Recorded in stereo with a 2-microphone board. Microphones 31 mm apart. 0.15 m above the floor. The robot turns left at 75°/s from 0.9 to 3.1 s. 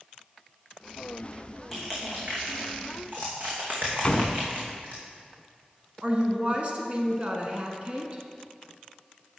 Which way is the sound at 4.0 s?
25° left (ahead or behind).